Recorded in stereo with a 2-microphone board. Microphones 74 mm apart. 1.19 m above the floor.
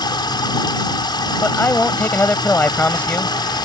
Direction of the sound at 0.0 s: 80° left.